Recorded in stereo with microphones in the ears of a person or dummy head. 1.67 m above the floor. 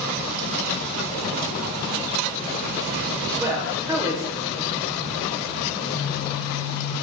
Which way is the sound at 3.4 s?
15° right (ahead or behind).